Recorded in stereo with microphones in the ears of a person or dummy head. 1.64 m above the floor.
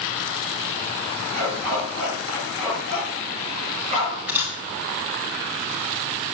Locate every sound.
1.3 s a dog barking: 50° right (ahead or behind), 8.5 m; by 4.2 s 35° right (ahead or behind), 7.5 m
4.3 s a camera shutter: 10° right (ahead or behind), 4.5 m